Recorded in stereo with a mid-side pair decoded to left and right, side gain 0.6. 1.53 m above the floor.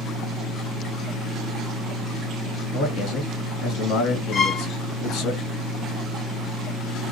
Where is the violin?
55° left, 1.6 m.